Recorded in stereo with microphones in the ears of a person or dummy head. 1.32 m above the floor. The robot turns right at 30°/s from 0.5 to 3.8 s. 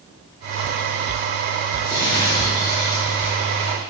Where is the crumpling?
10° left (ahead or behind), 0.8 m; by 3.9 s 25° left (ahead or behind), 0.8 m.